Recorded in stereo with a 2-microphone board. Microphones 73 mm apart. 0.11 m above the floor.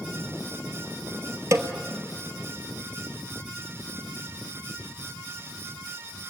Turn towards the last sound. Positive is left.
turn(degrees=-40)  # may be behind; listen again after turning